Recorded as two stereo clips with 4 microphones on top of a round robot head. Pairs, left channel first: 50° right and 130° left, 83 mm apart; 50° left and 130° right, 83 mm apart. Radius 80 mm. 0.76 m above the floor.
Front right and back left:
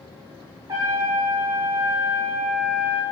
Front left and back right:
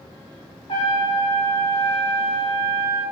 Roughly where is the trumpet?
Left.